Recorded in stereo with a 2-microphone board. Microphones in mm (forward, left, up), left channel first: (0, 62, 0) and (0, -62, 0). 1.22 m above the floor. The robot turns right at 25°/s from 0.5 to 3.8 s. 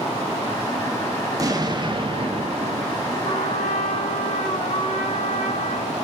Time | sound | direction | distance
1.4 | an explosion | 150° right | 1.4 m
3.2 | a trumpet | 85° left | 3.5 m